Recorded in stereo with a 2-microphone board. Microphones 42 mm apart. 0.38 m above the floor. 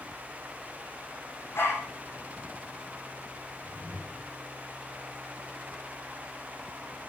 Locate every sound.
1.6 s a dog barking: 60° left (ahead or behind), 8 m
3.6 s a whoosh: 20° left (ahead or behind), 6 m